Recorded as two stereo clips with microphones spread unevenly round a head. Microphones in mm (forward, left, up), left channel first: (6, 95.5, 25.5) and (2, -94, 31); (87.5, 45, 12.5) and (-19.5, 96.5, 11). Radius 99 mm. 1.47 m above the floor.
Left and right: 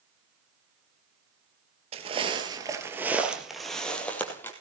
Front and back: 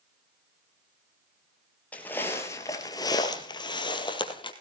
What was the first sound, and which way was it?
Footsteps, 95° right.